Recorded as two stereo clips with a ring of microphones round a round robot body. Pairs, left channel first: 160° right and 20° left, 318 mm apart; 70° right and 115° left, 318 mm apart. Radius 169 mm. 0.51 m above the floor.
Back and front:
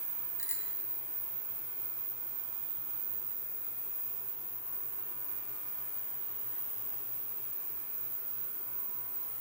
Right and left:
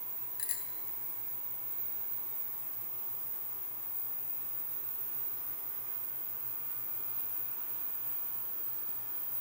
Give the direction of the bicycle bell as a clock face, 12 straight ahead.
3 o'clock.